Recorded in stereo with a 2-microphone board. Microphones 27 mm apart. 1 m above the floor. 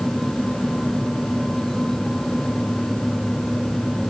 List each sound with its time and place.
Only background noise.